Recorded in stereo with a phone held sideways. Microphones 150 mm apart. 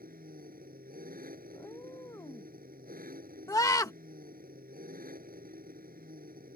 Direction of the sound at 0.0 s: 70° right (ahead or behind).